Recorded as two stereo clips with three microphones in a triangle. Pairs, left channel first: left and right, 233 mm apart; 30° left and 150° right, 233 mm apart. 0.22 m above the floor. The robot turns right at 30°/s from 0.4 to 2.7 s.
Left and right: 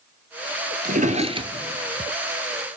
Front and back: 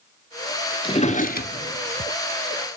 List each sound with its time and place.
0.8 s a drawer: 40° right, 0.9 m; by 2.1 s 5° right, 0.9 m